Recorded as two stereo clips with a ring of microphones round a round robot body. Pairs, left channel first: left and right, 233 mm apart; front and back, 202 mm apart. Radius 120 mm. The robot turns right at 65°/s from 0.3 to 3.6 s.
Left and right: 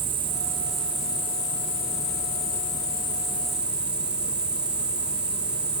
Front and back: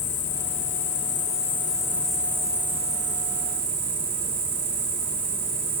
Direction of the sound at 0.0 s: 30° right.